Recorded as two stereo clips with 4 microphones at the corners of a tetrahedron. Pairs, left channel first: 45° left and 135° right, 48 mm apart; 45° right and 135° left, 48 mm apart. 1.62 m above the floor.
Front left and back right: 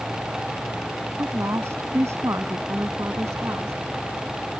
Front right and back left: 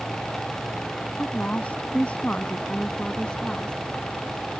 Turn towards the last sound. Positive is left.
turn(degrees=-120)